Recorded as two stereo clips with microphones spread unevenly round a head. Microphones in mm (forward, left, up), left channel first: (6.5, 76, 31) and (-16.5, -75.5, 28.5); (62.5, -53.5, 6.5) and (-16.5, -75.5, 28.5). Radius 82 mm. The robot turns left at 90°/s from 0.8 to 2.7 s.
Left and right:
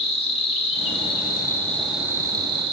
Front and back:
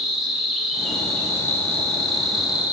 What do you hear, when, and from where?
0.0 s an insect: 85° left, 1.3 m; by 2.7 s 85° right, 1.3 m